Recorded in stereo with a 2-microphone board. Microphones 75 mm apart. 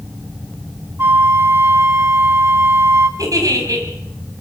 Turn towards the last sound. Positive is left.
turn(degrees=-55)  # may be behind; listen again after turning